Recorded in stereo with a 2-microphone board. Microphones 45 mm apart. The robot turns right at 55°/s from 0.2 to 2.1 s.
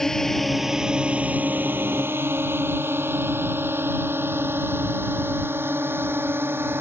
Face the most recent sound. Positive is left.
turn(degrees=-70)  # may be behind; listen again after turning